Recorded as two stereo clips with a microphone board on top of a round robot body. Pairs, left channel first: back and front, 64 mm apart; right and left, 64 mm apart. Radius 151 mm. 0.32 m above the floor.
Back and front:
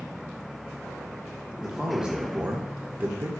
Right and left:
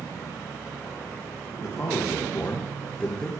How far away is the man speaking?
About 1.5 m.